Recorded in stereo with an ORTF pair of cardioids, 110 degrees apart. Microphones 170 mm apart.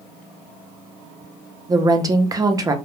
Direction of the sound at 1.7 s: 20° right.